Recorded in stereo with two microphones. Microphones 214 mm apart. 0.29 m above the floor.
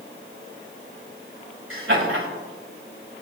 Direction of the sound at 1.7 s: 75° right (ahead or behind).